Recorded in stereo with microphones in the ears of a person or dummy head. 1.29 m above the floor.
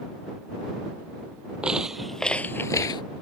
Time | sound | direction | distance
1.6 | footsteps | 5° right (ahead or behind) | ?